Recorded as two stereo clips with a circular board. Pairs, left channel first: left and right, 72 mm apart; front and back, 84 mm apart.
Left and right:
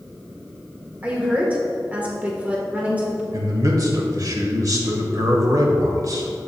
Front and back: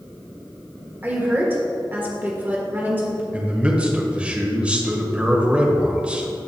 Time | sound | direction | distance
1.0 | a woman speaking | 140° right | 1.4 m
3.3 | a man speaking | 105° right | 1.3 m